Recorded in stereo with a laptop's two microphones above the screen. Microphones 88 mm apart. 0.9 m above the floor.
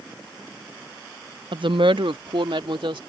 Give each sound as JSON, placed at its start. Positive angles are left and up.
{"t": 1.5, "sound": "a woman speaking", "side_deg": -65}